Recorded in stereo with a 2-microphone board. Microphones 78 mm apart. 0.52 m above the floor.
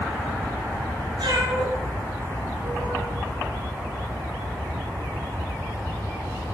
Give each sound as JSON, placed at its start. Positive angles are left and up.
{"t": 1.2, "sound": "a cat meowing", "side_deg": -85, "distance_m": 5.0}